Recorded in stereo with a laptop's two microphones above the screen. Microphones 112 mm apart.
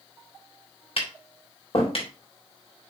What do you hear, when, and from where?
1.0 s tapping: 55° left (ahead or behind), 3 m